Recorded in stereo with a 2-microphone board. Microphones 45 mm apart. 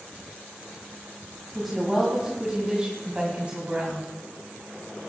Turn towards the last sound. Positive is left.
turn(degrees=-35)  # may be behind; listen again after turning